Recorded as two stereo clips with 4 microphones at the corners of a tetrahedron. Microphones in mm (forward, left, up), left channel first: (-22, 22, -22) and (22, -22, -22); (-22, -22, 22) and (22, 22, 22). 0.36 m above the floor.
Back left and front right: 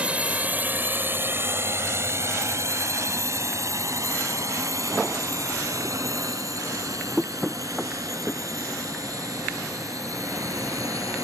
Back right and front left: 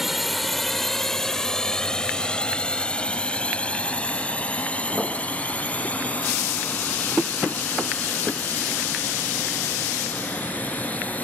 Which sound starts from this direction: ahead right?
A drone, at 0.0 s.